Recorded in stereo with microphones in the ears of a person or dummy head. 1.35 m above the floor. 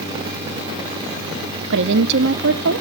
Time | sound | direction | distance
1.7 | a woman speaking | 60° right (ahead or behind) | 0.9 m